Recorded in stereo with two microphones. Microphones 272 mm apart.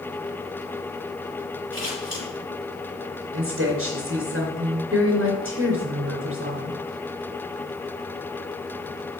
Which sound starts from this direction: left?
Scissors, at 1.7 s.